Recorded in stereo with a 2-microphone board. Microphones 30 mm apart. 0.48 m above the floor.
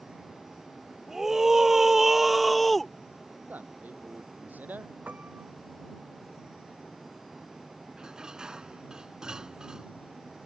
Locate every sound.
1.1 s a scream: 15° right (ahead or behind); by 2.9 s 5° left (ahead or behind)
3.5 s a man speaking: 75° right (ahead or behind)
5.1 s a piano: 65° right (ahead or behind)
8.0 s dishes clattering: 25° right (ahead or behind)